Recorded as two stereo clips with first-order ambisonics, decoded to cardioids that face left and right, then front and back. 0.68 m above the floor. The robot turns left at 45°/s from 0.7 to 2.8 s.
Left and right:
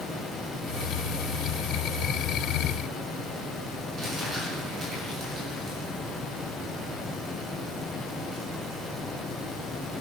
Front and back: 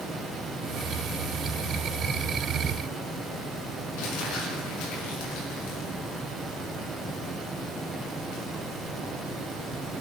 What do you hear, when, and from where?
4.0 s crumpling: 15° right, 6.5 m